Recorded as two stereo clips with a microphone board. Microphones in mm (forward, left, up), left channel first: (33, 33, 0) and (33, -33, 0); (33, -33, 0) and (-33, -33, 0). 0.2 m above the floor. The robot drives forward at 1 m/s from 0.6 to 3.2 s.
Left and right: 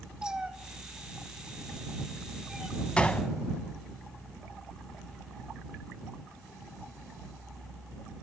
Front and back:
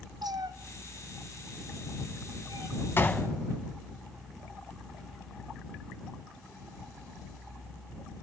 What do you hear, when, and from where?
0.2 s a cat meowing: 165° right, 0.9 m; by 2.8 s 175° right, 3 m
3.0 s a gunshot: 25° left, 0.8 m; by 3.3 s 50° left, 0.7 m